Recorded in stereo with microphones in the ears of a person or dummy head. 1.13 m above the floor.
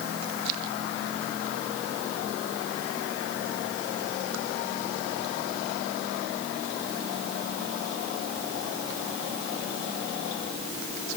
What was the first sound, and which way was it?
Only background noise.